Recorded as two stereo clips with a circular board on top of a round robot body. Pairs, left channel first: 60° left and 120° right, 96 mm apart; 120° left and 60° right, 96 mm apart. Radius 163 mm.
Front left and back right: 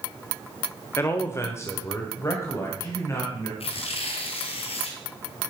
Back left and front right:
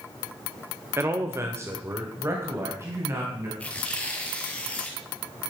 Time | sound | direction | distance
1.0 | a man speaking | straight ahead | 1.4 m
3.6 | tearing paper | 45° left | 2 m